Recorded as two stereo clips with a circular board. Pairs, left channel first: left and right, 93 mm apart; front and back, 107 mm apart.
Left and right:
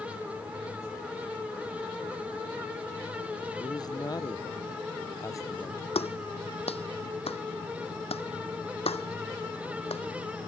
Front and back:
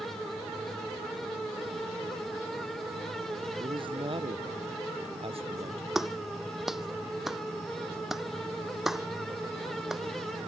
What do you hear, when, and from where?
3.6 s a man speaking: 135° left; by 5.8 s 150° left
6.0 s a clap: 95° left